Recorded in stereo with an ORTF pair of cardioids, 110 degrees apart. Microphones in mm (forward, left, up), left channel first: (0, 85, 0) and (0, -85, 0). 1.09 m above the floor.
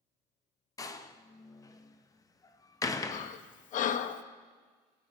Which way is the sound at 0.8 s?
20° left.